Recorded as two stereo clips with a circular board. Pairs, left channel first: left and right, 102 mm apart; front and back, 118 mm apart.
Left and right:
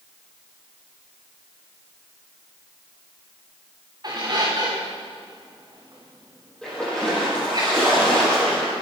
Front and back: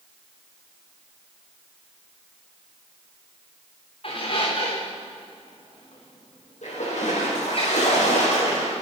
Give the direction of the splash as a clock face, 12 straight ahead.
12 o'clock.